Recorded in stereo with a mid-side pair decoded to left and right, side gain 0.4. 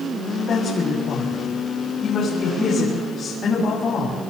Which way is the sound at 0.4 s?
60° left.